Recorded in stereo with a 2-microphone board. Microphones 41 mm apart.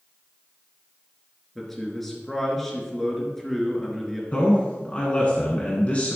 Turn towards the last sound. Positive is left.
turn(degrees=35)  # may be behind; listen again after turning